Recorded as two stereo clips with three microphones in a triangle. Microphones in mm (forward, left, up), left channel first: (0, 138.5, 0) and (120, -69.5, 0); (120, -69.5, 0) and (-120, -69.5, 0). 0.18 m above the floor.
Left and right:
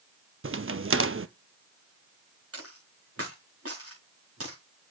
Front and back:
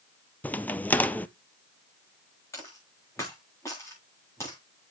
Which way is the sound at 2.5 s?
80° right.